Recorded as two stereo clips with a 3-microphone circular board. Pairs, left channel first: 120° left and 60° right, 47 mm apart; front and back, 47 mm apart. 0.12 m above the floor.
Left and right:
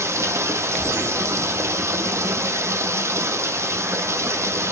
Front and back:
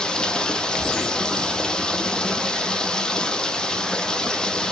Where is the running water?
75° right, 1.0 m.